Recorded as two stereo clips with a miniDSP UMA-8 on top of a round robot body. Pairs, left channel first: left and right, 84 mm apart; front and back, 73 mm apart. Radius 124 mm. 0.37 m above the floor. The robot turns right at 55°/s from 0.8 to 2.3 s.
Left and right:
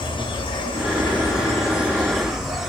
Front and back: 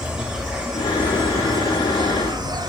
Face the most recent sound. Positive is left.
turn(degrees=-175)